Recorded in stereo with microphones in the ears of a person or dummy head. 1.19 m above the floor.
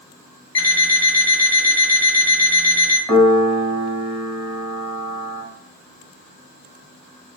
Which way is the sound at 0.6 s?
15° left (ahead or behind).